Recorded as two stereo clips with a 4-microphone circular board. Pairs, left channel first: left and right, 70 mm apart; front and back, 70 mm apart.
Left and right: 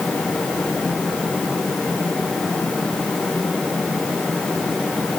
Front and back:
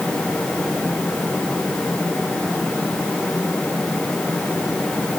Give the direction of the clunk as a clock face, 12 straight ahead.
I don't hear a clunk.